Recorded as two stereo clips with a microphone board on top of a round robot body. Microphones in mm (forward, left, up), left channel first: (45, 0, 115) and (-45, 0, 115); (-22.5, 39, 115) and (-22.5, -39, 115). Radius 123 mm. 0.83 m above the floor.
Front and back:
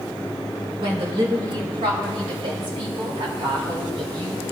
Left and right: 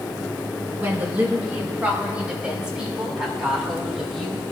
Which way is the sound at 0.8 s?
155° right.